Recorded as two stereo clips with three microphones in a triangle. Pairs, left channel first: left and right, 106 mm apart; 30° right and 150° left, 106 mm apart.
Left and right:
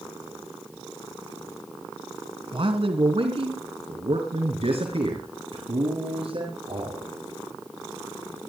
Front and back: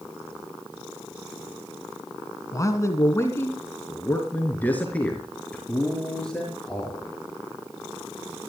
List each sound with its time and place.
2.5 s a man speaking: 85° right, 3 m; by 7.1 s 115° right, 5.5 m